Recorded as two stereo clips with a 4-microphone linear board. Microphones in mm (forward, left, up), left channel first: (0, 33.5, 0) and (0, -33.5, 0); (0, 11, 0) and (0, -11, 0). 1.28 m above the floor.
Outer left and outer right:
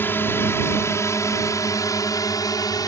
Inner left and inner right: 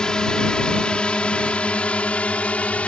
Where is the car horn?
No car horn in this recording.